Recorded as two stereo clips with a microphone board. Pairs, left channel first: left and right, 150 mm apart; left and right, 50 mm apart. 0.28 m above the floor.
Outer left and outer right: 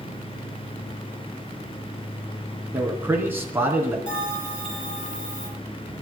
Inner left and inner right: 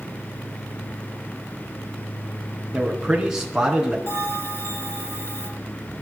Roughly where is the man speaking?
Centre.